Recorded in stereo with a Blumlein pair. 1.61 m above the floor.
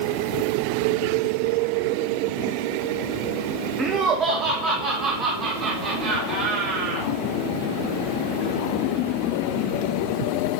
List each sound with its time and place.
3.8 s laughter: 25° right, 0.7 m; by 7.1 s 35° right, 4 m